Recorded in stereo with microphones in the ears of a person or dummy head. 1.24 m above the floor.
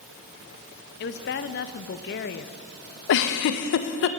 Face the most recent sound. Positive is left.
turn(degrees=65)  # may be behind; listen again after turning